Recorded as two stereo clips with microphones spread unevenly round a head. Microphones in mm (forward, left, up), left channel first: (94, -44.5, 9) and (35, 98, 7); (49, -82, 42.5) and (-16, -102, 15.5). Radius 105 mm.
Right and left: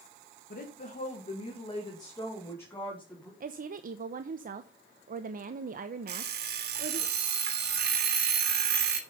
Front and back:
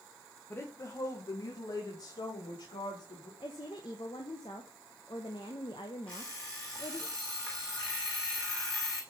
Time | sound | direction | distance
0.5 | a woman speaking | 45° right | 1.9 m
3.4 | a woman speaking | 80° left | 0.8 m
6.1 | an alarm clock | 95° left | 2.5 m